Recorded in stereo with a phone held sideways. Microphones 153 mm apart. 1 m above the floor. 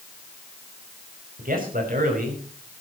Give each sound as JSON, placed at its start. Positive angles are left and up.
{"t": 1.4, "sound": "a man speaking", "side_deg": -75, "distance_m": 5.5}